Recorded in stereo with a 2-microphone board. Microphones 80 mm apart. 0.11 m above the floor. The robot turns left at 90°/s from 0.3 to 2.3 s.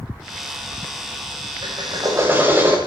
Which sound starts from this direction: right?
A drill, at 1.6 s.